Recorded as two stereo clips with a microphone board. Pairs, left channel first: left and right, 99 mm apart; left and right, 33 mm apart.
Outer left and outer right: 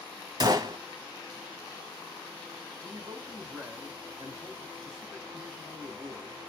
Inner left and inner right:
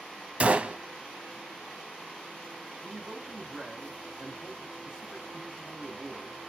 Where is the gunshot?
40° right (ahead or behind), 0.7 m.